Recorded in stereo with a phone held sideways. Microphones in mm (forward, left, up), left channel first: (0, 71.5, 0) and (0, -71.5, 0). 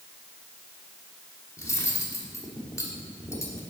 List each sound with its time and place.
1.6 s cutlery clinking: 20° left (ahead or behind), 1.3 m